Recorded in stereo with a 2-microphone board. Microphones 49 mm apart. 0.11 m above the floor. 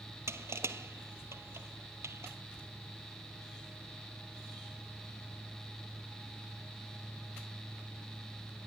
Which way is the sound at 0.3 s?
70° right (ahead or behind).